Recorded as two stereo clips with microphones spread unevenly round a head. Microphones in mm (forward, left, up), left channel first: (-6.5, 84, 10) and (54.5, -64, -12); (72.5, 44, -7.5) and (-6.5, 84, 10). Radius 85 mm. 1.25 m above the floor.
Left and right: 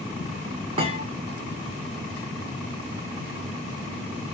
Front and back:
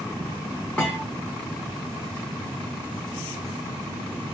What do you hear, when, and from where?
0.8 s a thud: 120° right, 1.0 m